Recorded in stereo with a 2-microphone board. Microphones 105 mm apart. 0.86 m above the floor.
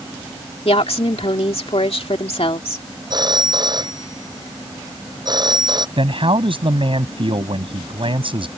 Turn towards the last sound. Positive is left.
turn(degrees=-55)  # may be behind; listen again after turning